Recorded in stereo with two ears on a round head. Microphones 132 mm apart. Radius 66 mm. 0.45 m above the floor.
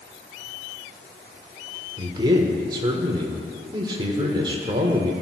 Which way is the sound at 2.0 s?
30° right (ahead or behind).